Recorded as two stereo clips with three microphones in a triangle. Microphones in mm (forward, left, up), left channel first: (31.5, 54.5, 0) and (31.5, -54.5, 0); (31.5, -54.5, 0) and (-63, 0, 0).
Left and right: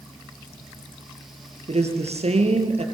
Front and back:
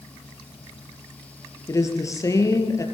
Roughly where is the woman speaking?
Right.